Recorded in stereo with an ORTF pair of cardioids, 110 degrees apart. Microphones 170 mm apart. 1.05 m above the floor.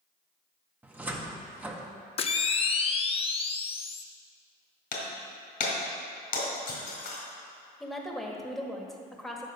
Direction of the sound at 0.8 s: 10° right.